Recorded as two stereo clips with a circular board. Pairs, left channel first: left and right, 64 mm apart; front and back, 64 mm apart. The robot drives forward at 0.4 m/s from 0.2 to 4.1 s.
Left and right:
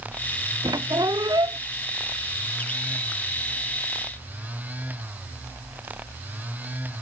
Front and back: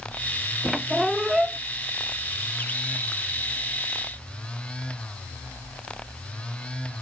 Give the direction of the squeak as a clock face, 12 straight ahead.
3 o'clock.